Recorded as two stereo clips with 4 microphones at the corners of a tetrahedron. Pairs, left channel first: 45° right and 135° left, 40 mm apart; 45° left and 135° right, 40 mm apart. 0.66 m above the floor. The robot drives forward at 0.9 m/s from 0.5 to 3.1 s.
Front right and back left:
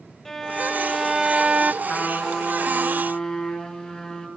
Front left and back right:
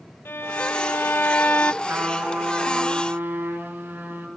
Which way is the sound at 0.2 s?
35° left.